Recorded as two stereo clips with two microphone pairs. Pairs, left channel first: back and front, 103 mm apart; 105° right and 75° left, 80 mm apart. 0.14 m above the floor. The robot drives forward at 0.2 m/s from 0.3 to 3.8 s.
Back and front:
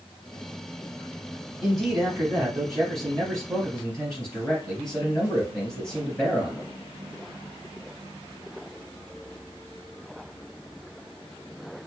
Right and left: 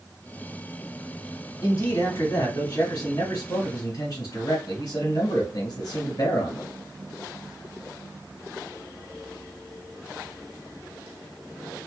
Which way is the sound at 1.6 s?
85° right.